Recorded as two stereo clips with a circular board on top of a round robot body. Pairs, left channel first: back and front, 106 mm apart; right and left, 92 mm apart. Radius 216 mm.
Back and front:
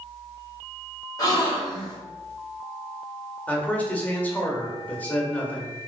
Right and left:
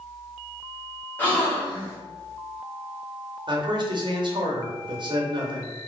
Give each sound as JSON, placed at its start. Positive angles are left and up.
{"t": 1.2, "sound": "a gasp", "azimuth_deg": -150, "distance_m": 1.6}
{"t": 3.5, "sound": "a man speaking", "azimuth_deg": 105, "distance_m": 1.1}